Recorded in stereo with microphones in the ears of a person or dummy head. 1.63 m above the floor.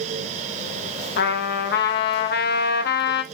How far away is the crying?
I don't hear crying.